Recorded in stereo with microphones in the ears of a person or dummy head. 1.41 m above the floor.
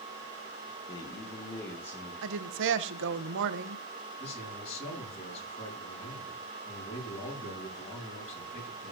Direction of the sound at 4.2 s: 35° left (ahead or behind).